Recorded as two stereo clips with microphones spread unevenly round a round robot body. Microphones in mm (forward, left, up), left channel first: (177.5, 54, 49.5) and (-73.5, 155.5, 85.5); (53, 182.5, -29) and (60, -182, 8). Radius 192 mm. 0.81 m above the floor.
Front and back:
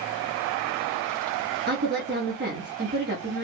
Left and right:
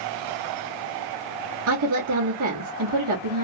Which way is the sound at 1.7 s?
140° right.